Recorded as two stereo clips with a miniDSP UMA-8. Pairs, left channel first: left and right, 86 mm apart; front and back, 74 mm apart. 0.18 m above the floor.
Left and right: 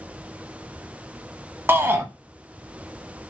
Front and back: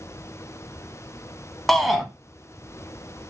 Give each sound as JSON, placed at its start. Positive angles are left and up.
{"t": 1.7, "sound": "a shout", "azimuth_deg": -85, "distance_m": 1.3}